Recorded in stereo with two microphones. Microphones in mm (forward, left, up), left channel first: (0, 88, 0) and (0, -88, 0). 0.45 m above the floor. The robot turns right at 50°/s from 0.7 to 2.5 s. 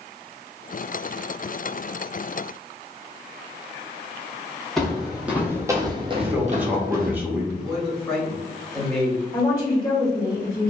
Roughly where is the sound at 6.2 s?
Centre.